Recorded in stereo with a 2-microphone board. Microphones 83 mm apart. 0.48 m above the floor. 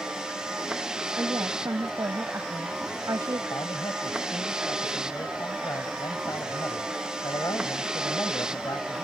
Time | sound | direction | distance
0.0 | a vehicle | 10° right (ahead or behind) | ?
1.2 | a woman speaking | 40° right (ahead or behind) | ?
3.5 | a man speaking | 45° left (ahead or behind) | ?